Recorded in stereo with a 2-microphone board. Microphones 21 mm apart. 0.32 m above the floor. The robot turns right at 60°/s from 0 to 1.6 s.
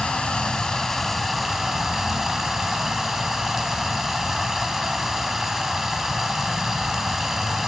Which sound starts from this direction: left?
Running water, at 0.0 s.